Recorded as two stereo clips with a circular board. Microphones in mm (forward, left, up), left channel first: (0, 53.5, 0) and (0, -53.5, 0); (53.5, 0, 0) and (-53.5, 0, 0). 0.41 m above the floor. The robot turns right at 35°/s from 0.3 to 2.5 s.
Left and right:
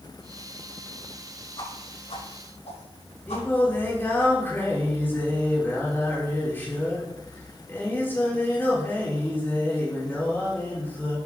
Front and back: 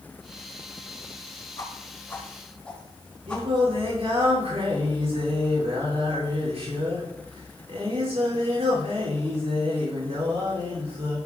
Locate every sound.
1.6 s a whoosh: 50° left, 6 m; by 4.3 s 85° left, 6 m
3.3 s singing: 160° left, 6 m